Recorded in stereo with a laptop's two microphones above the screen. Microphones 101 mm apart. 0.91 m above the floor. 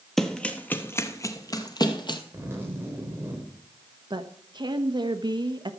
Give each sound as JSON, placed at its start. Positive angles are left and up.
{"t": 0.2, "sound": "running footsteps", "side_deg": 5, "distance_m": 1.0}
{"t": 2.3, "sound": "a zipper", "side_deg": -25, "distance_m": 4.0}
{"t": 4.1, "sound": "a woman speaking", "side_deg": -45, "distance_m": 1.2}